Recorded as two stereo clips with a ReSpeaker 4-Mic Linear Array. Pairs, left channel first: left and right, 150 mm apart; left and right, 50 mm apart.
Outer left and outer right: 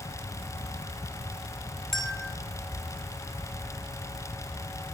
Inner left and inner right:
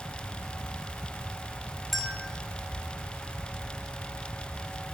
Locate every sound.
1.9 s a bell: 5° left (ahead or behind), 0.7 m